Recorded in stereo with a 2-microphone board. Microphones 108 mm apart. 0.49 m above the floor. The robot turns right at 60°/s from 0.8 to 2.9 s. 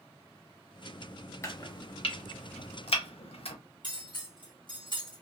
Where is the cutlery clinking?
50° left (ahead or behind), 1.6 m.